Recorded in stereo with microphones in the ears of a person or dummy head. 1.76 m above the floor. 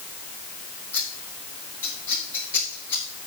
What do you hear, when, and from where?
0.9 s scissors: 10° left (ahead or behind), 4.5 m